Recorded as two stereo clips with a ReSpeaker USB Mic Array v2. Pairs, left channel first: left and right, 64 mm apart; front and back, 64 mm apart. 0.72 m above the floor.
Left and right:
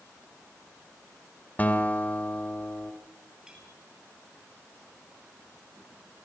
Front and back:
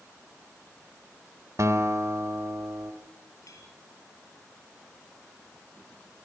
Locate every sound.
1.6 s a guitar: 150° left, 3 m
3.5 s a clink: 10° right, 7.5 m